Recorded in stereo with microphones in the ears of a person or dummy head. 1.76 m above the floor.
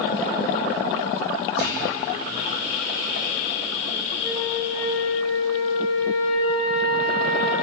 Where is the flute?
25° left (ahead or behind), 3.5 m.